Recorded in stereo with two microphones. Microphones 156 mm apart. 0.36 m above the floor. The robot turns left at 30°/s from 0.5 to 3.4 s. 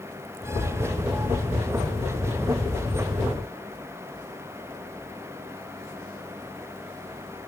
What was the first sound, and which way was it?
Only background noise.